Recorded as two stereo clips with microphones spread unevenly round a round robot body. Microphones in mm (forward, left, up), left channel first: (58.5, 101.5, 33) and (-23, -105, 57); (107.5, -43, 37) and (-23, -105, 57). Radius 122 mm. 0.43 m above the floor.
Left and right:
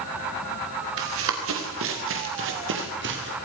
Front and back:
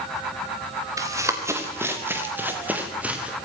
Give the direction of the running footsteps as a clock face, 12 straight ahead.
3 o'clock.